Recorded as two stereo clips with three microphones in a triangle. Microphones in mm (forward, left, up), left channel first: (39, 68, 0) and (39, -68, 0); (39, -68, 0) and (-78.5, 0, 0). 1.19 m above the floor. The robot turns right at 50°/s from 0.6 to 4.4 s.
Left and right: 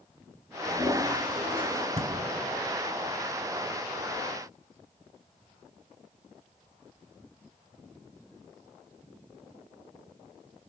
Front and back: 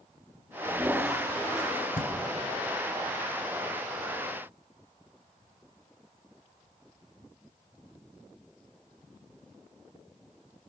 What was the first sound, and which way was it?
A toilet flushing, 145° right.